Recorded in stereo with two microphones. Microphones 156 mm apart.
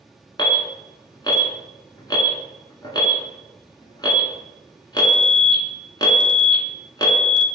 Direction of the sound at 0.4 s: 30° left (ahead or behind).